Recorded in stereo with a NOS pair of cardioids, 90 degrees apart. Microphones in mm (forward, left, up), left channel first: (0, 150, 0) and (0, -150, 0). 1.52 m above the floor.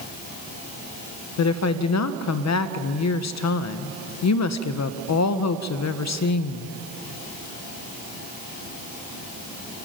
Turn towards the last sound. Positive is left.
turn(degrees=60)